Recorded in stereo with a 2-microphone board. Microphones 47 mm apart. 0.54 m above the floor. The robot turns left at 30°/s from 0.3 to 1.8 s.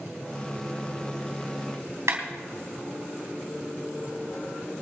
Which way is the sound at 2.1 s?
80° right.